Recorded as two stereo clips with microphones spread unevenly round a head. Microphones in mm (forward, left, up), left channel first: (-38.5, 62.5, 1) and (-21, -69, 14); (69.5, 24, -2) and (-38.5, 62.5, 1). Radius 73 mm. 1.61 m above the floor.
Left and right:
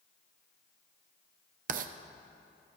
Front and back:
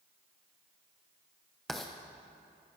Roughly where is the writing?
Right.